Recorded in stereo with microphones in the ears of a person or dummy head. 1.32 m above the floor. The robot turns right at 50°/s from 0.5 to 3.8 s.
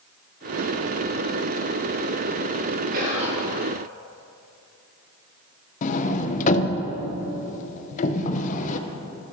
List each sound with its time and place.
2.9 s whispering: 50° right (ahead or behind), 1.9 m; by 3.4 s 30° right (ahead or behind), 1.9 m
5.8 s a sliding door: 40° left (ahead or behind), 0.5 m